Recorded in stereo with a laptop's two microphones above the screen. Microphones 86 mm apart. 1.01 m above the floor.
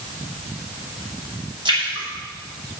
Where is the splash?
60° right (ahead or behind), 5.5 m.